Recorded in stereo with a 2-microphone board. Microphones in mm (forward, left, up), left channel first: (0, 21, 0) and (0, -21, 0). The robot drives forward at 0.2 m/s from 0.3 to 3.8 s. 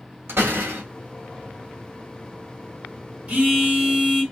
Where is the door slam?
80° right, 1.0 m; by 0.8 s 85° right, 1.0 m.